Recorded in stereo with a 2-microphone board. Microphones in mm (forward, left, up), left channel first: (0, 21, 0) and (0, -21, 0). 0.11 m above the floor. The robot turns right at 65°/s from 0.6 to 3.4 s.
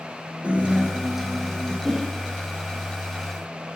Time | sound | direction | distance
0.4 | a guitar | 45° right | 1.5 m
1.9 | a whoosh | centre (ahead or behind) | 1.6 m